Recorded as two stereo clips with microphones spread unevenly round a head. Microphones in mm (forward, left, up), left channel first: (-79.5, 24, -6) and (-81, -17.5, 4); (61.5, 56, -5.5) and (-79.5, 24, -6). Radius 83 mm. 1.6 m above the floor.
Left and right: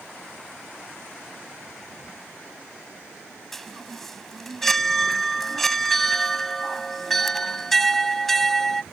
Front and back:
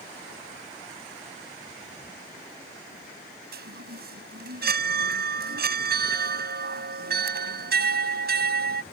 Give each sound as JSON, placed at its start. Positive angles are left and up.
{"t": 3.5, "sound": "a chime", "azimuth_deg": 175}